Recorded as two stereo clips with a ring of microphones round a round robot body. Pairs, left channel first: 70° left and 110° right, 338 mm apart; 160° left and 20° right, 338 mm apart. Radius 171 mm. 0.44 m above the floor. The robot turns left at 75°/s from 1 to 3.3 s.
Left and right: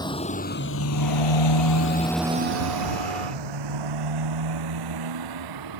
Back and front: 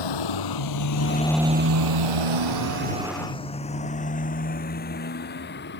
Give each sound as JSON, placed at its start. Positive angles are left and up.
{"t": 0.0, "sound": "a motorcycle", "azimuth_deg": 145}